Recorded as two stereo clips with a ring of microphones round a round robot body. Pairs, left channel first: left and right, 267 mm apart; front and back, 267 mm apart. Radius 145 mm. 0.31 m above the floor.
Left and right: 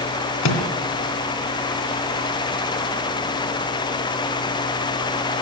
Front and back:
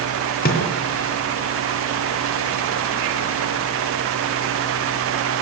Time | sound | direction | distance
0.4 | a microwave | 60° left | 3 m